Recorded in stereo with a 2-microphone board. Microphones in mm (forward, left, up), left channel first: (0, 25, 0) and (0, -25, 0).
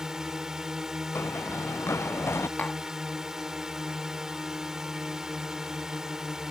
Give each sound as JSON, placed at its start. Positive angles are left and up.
{"t": 0.0, "sound": "a drone", "side_deg": -10}
{"t": 1.1, "sound": "running footsteps", "side_deg": 60}
{"t": 2.6, "sound": "tapping", "side_deg": 35}